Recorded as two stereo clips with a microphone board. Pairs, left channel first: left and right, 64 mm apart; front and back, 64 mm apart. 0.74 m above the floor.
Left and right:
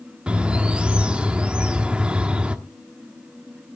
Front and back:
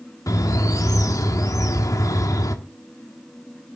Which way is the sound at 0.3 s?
20° right.